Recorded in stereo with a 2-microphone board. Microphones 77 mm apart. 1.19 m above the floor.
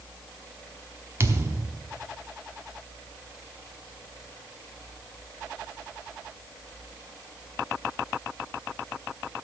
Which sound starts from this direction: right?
A thud, at 1.2 s.